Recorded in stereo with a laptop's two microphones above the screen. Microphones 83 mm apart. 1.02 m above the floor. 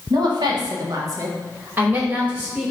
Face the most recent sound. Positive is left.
turn(degrees=-10)  # may be behind; listen again after turning